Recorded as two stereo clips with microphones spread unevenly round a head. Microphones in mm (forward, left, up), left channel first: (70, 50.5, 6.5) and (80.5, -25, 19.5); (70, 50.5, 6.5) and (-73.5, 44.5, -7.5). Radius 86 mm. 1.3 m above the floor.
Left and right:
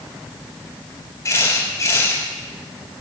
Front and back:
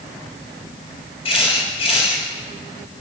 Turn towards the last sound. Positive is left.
turn(degrees=55)